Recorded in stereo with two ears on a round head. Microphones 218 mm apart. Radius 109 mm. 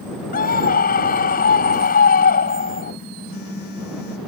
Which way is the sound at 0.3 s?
35° left (ahead or behind).